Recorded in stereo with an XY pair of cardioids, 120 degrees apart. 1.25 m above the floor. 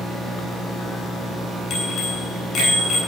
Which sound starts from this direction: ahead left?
A bicycle bell, at 1.7 s.